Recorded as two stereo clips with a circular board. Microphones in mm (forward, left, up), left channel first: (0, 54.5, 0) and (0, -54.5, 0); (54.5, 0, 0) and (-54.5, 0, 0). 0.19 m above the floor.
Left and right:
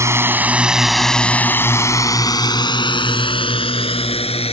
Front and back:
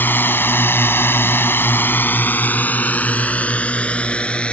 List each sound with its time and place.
0.0 s a drone: 55° right; by 4.5 s 80° left